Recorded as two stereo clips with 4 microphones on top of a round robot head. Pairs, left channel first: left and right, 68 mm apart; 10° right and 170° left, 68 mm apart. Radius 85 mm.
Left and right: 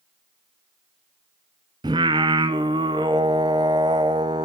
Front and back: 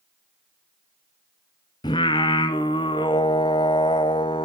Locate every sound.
1.8 s singing: 50° right, 0.6 m